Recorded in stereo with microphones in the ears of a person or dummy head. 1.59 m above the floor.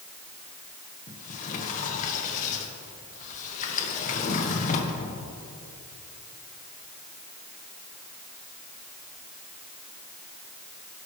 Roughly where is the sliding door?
Left.